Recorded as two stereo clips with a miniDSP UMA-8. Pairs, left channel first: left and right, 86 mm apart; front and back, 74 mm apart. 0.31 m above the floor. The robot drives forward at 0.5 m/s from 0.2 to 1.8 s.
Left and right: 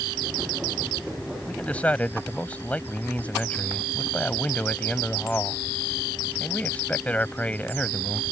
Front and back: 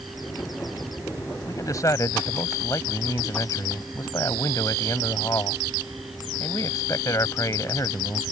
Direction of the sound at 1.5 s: 20° left.